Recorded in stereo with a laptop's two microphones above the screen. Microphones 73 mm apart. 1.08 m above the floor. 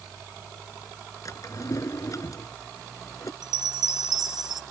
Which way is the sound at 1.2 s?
45° left (ahead or behind).